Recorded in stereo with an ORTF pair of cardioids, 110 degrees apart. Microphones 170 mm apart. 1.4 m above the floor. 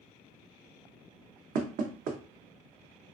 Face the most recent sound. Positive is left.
turn(degrees=-60)